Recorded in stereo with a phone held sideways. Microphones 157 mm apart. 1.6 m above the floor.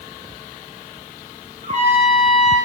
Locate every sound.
1.6 s a trumpet: 40° right (ahead or behind), 8 m